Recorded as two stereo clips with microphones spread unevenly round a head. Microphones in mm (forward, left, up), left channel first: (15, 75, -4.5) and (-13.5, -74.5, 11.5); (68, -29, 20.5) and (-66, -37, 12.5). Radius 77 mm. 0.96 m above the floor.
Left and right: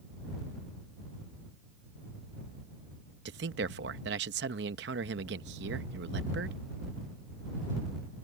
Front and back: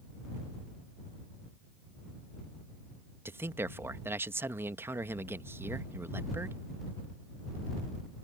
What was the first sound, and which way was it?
A man speaking, 105° right.